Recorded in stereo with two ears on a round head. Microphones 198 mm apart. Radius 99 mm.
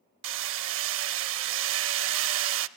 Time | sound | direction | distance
0.2 | hammering | 60° right (ahead or behind) | 0.5 m